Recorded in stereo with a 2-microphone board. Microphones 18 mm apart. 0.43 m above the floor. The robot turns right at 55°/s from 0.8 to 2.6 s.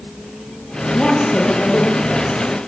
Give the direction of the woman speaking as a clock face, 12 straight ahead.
10 o'clock.